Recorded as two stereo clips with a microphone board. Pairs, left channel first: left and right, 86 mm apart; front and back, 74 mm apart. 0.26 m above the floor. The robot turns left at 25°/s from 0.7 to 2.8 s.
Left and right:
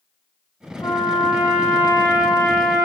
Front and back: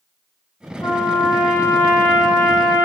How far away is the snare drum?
I don't hear a snare drum.